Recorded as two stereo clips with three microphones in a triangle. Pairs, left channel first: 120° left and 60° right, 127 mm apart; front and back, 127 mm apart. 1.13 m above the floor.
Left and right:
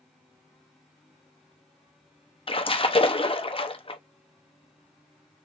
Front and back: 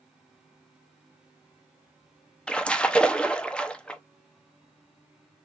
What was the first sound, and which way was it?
A splash, 80° left.